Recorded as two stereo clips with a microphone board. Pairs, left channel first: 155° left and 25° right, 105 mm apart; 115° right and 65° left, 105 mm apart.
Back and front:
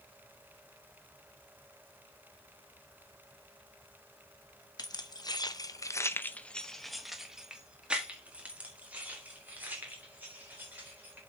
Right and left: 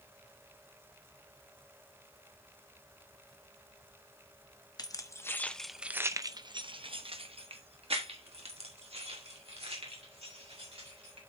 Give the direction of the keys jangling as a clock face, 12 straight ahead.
5 o'clock.